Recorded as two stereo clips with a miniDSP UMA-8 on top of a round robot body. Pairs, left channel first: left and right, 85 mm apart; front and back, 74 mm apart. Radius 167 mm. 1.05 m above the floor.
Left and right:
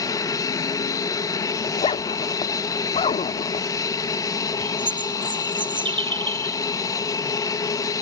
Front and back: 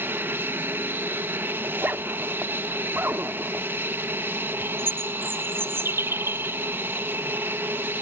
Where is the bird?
120° right.